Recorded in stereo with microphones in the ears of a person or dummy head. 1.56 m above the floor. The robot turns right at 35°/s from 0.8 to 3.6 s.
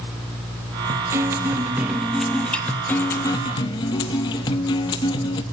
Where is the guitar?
20° right (ahead or behind), 1.0 m; by 5.4 s 20° left (ahead or behind), 1.0 m.